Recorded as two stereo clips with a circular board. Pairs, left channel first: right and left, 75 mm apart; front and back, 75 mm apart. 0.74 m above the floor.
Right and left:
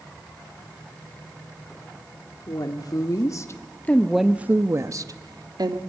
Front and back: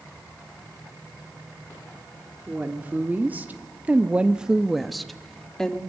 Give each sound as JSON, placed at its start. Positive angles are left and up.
{"t": 2.5, "sound": "a woman speaking", "azimuth_deg": -110, "distance_m": 2.0}